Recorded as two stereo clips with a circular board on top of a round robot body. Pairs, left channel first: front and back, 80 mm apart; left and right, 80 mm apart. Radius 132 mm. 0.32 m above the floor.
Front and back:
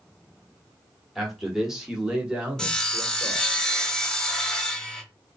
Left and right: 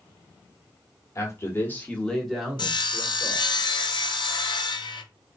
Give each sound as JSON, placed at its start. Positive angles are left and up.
{"t": 1.1, "sound": "a man speaking", "azimuth_deg": 95, "distance_m": 1.4}
{"t": 2.6, "sound": "sawing", "azimuth_deg": 85, "distance_m": 0.8}